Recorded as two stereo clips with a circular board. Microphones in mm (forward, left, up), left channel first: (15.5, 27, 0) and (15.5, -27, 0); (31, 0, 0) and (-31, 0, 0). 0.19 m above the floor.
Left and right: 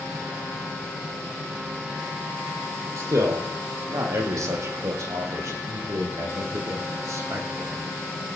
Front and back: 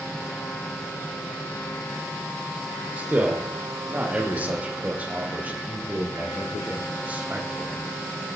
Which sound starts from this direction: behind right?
A man speaking, at 3.0 s.